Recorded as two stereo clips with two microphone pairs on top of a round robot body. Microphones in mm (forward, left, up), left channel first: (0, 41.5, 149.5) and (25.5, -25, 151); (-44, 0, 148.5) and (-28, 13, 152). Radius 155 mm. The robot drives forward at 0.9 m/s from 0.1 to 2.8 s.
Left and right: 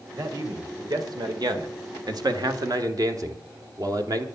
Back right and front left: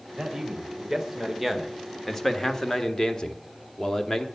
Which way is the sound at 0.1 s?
35° right.